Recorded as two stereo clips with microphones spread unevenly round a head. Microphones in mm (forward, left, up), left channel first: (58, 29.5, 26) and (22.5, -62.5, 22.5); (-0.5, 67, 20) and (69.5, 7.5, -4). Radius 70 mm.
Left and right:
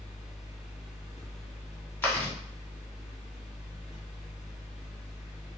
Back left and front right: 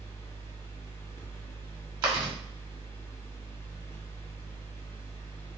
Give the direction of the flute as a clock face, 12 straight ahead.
No flute in this recording.